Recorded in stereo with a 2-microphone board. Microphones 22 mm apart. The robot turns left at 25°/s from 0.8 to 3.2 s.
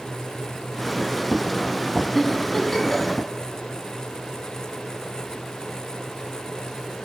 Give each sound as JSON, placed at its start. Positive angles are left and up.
{"t": 2.1, "sound": "a giggle", "side_deg": 5, "distance_m": 1.8}